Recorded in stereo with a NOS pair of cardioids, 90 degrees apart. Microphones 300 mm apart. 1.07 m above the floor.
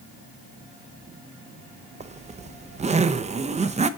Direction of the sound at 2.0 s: 25° right.